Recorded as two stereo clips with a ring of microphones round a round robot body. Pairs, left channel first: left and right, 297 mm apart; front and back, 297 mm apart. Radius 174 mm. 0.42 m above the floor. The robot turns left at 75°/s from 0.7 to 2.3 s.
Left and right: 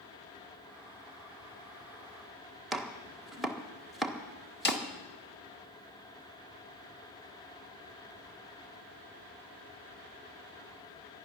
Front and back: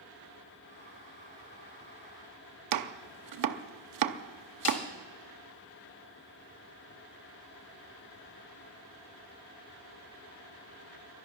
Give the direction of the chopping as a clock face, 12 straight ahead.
6 o'clock.